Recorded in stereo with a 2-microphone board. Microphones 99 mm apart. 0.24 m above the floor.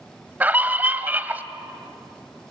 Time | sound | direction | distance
0.4 | a scream | 15° right (ahead or behind) | 1.1 m